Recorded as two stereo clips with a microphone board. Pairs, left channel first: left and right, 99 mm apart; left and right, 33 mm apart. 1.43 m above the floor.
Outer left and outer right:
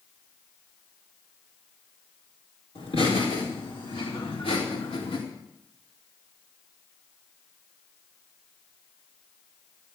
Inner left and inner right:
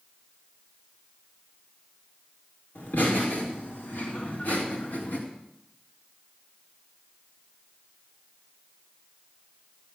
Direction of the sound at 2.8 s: 70° left (ahead or behind).